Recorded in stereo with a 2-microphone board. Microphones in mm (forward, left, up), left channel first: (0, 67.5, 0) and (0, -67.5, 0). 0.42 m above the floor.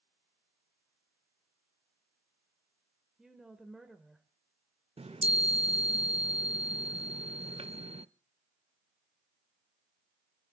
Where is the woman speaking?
Centre (ahead or behind), 1.7 m.